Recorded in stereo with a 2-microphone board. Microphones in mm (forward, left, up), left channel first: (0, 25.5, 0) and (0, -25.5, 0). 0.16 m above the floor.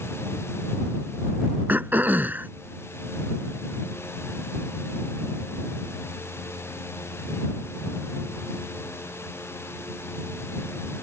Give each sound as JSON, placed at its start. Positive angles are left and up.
{"t": 1.7, "sound": "throat clearing", "side_deg": -40}